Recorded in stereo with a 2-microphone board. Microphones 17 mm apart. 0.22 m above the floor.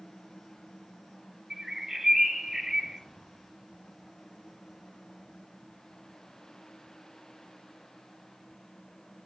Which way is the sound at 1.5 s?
25° right (ahead or behind).